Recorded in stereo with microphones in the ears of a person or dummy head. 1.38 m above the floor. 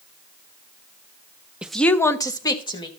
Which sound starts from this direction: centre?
A woman speaking, at 1.6 s.